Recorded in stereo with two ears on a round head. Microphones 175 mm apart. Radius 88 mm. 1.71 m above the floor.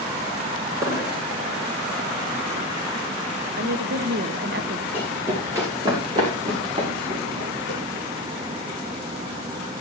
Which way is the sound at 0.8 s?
15° right (ahead or behind).